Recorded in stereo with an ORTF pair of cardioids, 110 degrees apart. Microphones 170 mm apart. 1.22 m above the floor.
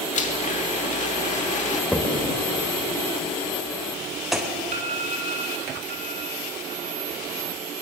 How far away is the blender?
About 2.5 m.